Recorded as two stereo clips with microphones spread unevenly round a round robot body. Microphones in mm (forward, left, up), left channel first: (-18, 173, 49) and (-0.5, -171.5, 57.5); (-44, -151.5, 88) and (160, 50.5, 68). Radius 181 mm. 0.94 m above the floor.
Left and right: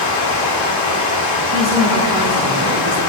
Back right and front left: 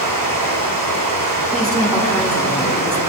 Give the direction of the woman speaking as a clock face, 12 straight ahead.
2 o'clock.